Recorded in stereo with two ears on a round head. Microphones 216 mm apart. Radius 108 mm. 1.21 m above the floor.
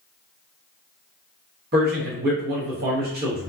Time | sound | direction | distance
1.7 | a man speaking | 45° right (ahead or behind) | 1.0 m